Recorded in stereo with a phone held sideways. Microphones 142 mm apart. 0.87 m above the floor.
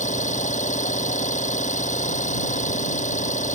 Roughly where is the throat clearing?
No throat clearing in this recording.